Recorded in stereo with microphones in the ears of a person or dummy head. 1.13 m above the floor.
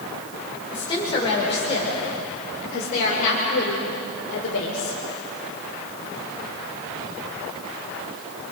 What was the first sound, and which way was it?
A woman speaking, 25° left (ahead or behind).